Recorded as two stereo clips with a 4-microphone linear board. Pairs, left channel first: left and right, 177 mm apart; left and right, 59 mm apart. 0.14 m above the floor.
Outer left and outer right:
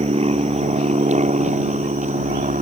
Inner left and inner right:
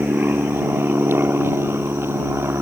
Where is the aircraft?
35° right (ahead or behind); by 2.6 s 45° right (ahead or behind).